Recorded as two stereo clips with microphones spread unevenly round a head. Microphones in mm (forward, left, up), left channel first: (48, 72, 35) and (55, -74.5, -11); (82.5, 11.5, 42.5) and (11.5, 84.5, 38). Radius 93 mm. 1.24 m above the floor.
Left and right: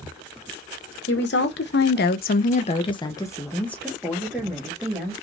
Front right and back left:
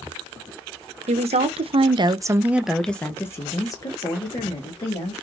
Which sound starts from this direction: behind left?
A woman speaking, at 1.1 s.